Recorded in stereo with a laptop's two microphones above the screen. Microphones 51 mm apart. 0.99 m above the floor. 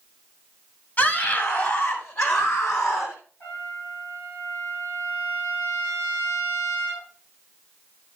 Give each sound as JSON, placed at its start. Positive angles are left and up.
{"t": 1.0, "sound": "a scream", "side_deg": 40, "distance_m": 6.5}
{"t": 3.4, "sound": "a trumpet", "side_deg": 50, "distance_m": 9.5}